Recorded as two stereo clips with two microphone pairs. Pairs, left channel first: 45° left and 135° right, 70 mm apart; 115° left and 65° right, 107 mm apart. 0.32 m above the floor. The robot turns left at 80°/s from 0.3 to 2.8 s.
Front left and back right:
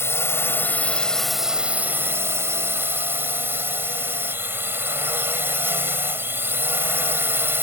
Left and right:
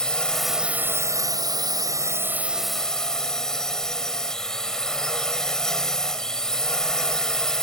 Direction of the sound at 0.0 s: 35° left.